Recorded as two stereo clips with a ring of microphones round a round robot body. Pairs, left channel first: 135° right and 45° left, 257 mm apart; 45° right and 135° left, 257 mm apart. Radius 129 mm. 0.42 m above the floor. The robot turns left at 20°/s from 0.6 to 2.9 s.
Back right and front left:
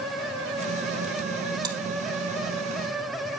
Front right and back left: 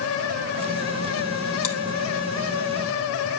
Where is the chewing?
30° right, 3 m; by 1.8 s 35° right, 3 m.